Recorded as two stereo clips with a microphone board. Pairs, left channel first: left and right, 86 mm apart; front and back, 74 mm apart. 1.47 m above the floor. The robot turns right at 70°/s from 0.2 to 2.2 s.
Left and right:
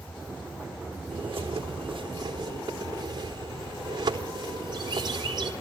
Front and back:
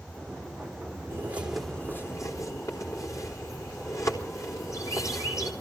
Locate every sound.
1.1 s a bird: 125° right, 3.5 m; by 5.5 s 50° right, 3.5 m